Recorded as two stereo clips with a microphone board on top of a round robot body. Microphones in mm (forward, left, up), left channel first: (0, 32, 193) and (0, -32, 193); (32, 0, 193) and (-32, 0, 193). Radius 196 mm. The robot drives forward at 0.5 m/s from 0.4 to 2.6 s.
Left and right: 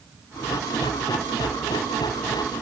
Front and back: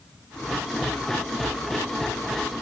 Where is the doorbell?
I don't hear a doorbell.